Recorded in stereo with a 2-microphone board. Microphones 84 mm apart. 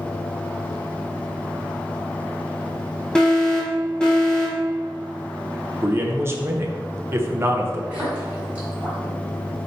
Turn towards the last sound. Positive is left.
turn(degrees=-15)  # may be behind; listen again after turning